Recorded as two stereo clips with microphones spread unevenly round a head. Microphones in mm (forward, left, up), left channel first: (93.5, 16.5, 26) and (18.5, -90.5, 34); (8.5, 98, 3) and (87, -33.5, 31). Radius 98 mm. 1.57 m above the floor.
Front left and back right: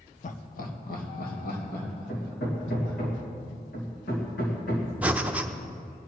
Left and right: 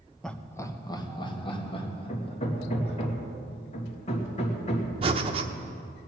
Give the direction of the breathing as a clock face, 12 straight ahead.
2 o'clock.